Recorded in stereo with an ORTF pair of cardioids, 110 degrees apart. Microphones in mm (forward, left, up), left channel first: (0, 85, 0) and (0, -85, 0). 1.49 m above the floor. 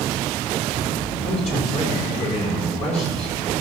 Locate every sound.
1.2 s a man speaking: 40° left, 5.5 m